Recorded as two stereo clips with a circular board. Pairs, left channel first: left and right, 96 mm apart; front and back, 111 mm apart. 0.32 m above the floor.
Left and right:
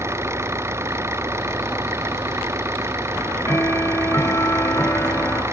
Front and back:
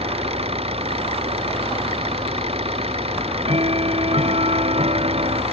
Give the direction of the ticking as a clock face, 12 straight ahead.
7 o'clock.